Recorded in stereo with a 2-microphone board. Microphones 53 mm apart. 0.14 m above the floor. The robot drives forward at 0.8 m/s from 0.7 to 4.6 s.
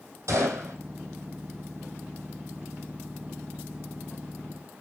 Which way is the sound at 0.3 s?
75° right (ahead or behind).